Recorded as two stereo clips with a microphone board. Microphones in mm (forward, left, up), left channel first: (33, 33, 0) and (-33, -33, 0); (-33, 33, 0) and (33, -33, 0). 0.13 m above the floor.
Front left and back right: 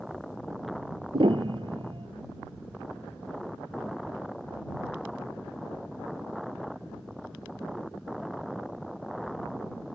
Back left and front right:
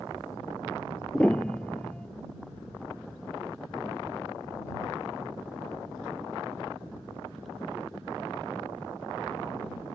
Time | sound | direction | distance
1.1 | a piano | 145° right | ?